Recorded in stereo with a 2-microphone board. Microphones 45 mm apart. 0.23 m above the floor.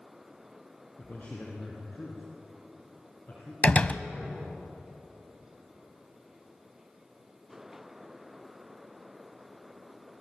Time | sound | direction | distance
1.0 | a man speaking | 40° left (ahead or behind) | 4 m
3.6 | a door slam | 30° left (ahead or behind) | 0.8 m